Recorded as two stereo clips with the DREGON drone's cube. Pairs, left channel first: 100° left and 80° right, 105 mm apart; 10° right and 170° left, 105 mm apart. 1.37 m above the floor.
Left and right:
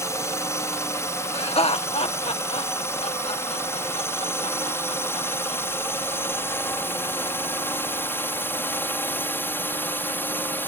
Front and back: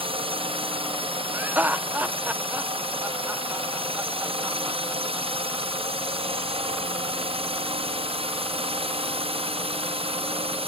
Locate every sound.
0.0 s a drone: 160° left; by 10.7 s 170° left
1.3 s laughter: 95° left